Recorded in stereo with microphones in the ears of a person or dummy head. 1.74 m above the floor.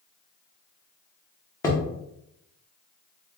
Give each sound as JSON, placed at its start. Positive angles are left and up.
{"t": 1.6, "sound": "hammering", "side_deg": 15, "distance_m": 0.7}